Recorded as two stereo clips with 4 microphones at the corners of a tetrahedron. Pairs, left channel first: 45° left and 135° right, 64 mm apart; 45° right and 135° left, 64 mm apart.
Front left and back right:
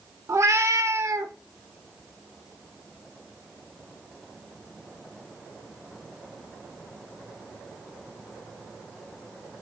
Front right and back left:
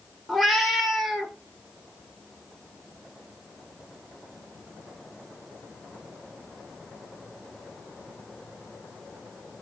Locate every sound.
0.3 s a cat meowing: 135° right, 0.7 m